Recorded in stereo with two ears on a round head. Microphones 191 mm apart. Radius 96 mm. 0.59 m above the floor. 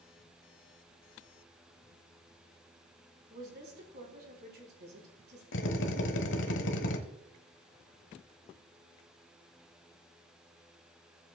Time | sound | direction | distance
3.3 | a woman speaking | 50° right (ahead or behind) | 4 m
5.5 | a drill | 60° left (ahead or behind) | 1.2 m